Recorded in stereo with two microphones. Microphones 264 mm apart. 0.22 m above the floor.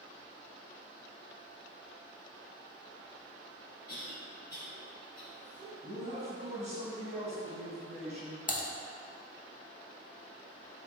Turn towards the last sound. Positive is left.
turn(degrees=30)  # may be behind; listen again after turning